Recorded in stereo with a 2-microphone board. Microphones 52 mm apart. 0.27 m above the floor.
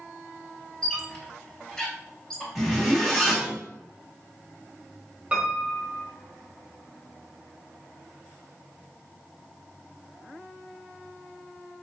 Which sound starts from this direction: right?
A piano, at 5.3 s.